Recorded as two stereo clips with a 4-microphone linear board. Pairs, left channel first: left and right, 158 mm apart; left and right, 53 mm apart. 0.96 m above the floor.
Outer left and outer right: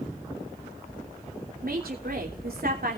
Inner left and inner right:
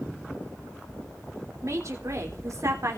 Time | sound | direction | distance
1.6 | a woman speaking | 65° right (ahead or behind) | 3 m